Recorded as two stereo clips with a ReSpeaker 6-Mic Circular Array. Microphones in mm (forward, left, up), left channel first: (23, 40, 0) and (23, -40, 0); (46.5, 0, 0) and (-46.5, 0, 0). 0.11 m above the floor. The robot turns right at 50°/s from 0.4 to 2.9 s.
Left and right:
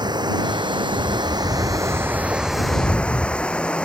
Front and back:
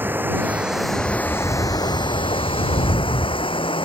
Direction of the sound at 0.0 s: 110° right.